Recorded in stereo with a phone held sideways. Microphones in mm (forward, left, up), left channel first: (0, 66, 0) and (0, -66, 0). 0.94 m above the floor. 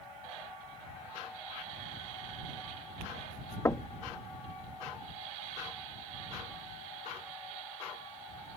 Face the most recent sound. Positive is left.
turn(degrees=25)  # may be behind; listen again after turning